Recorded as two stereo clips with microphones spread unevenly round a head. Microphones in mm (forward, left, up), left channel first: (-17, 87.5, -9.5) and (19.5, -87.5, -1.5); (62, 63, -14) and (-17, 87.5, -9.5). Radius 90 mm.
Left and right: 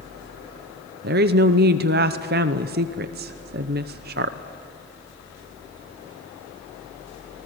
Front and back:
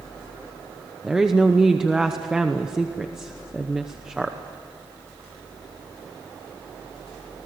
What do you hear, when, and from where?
1.0 s a woman speaking: 110° right, 0.7 m